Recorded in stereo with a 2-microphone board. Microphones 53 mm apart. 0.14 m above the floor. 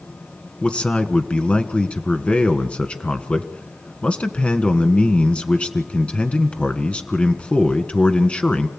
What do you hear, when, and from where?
0.6 s a man speaking: 25° left (ahead or behind), 1.6 m